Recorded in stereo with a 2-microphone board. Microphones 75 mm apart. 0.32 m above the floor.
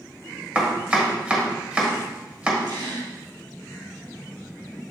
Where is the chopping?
20° right (ahead or behind), 1.6 m.